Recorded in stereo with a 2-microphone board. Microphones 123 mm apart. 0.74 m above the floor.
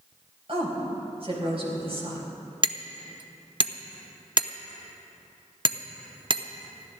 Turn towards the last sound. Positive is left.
turn(degrees=-40)  # may be behind; listen again after turning